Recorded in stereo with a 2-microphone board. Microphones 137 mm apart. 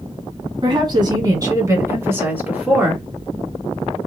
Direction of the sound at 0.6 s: 35° right (ahead or behind).